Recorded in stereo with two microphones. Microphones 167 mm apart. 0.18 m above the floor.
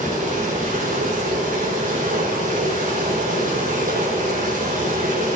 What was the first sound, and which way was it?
Running water, 50° right (ahead or behind).